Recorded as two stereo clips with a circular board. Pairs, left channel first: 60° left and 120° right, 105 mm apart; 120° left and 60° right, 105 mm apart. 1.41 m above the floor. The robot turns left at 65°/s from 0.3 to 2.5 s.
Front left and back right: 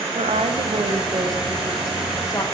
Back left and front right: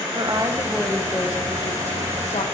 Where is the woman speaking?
110° right, 0.9 m; by 2.4 s 110° left, 0.9 m.